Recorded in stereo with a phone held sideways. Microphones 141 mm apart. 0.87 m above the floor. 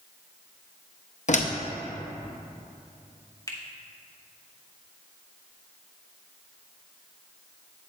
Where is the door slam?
55° left (ahead or behind), 0.6 m.